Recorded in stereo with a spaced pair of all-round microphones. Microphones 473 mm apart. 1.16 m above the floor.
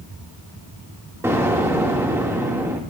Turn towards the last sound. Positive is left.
turn(degrees=-5)  # may be behind; listen again after turning